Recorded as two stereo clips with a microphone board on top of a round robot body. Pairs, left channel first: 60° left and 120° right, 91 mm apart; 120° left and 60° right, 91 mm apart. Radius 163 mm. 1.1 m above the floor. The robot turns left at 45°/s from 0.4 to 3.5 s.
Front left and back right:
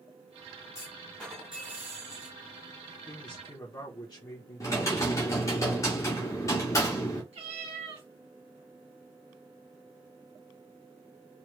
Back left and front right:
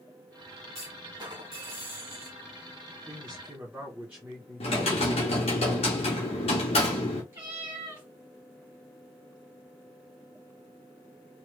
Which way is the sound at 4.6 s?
115° left.